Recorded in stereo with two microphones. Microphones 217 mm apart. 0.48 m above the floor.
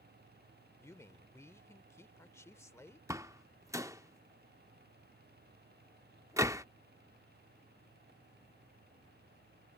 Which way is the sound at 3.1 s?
15° right (ahead or behind).